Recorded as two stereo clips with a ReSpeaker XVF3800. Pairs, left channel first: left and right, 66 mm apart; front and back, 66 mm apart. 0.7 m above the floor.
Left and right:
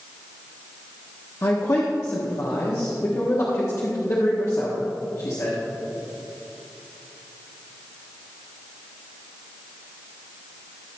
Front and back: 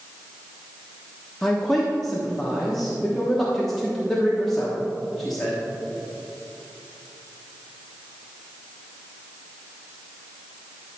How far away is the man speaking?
About 1.1 m.